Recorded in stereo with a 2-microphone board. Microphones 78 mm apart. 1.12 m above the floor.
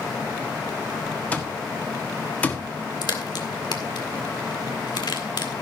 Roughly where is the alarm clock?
Centre.